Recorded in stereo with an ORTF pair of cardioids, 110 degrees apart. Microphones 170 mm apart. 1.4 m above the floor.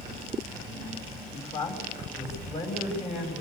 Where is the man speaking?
35° left, 7.5 m.